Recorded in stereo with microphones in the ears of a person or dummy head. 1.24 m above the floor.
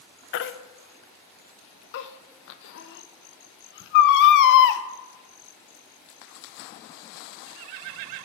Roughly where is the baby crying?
Left.